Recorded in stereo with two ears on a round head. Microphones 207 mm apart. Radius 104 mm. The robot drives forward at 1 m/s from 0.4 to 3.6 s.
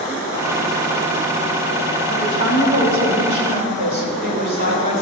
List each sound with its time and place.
2.1 s a woman speaking: 65° right (ahead or behind), 3.5 m; by 5.0 s 50° right (ahead or behind), 4.5 m